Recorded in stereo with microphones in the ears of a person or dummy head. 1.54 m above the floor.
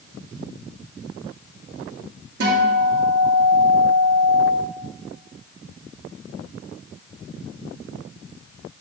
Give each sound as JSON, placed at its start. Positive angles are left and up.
{"t": 2.4, "sound": "a guitar", "side_deg": -70, "distance_m": 1.8}